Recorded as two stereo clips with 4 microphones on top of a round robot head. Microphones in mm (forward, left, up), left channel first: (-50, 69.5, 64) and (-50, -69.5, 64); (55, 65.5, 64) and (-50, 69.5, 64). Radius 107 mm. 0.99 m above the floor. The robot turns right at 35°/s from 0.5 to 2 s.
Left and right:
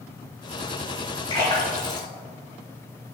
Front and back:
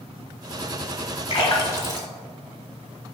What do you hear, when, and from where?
1.3 s a splash: 25° left, 2.0 m; by 2.1 s 50° left, 2.0 m